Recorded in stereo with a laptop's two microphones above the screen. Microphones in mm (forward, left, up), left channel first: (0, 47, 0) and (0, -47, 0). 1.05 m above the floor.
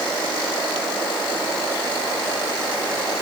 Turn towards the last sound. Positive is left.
No sound to turn to.